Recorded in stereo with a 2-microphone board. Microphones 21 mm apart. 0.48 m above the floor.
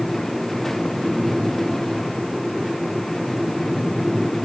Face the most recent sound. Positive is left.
No sound to turn to.